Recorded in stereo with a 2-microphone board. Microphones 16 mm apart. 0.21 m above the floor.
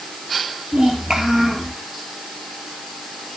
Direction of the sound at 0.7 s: 55° right (ahead or behind).